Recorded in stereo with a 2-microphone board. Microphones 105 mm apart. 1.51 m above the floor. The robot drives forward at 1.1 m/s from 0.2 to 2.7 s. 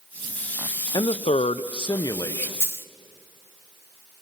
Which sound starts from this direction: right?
A dropped coin, at 2.6 s.